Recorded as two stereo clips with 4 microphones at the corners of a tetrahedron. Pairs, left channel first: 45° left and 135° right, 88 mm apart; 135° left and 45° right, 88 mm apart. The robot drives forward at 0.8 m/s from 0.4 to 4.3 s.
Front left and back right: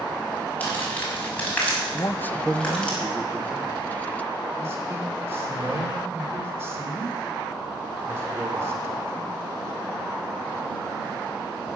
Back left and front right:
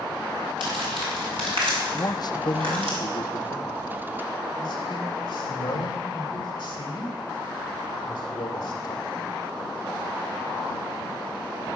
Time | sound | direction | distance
0.6 | crumpling | 25° right | 6.5 m
1.9 | a man speaking | 85° left | 0.6 m